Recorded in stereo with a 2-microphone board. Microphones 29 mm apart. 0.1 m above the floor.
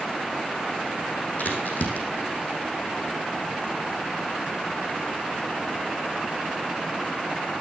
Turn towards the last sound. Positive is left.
turn(degrees=60)  # may be behind; listen again after turning